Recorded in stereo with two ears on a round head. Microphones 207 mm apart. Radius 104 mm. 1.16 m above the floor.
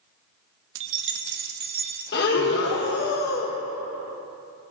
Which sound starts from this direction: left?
Breathing, at 2.1 s.